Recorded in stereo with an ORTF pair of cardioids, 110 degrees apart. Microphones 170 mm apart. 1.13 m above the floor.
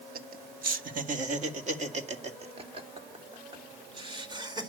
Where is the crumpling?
I don't hear crumpling.